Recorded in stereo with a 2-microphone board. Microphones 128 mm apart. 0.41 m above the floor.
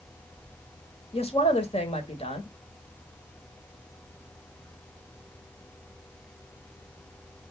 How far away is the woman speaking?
About 1.5 m.